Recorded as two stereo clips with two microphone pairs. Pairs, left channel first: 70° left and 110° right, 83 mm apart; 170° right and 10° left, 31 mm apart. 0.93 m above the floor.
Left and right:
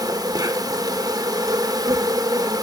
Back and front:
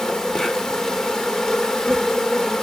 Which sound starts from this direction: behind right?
An insect, at 0.0 s.